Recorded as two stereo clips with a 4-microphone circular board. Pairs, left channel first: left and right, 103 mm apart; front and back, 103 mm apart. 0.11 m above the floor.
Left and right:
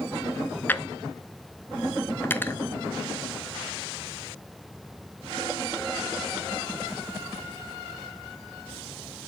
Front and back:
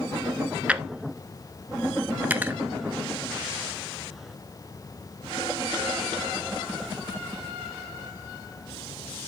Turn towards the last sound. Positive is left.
turn(degrees=130)